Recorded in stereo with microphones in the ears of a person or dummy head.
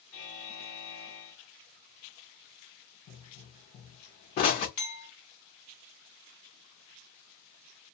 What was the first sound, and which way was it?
A buzzer, 45° left (ahead or behind).